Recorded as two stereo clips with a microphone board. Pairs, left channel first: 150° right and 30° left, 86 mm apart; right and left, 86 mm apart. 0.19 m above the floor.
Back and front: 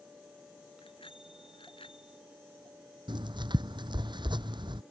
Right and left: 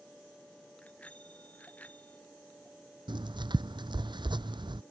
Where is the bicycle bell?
165° right; by 2.2 s 160° right.